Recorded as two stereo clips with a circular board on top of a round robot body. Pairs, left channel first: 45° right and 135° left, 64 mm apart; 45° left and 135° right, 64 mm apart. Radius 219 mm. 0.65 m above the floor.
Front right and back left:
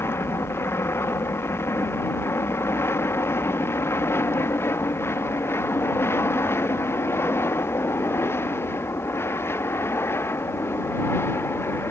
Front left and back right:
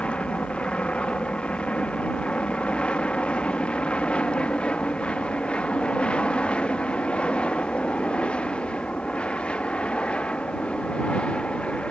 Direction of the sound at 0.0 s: 20° right.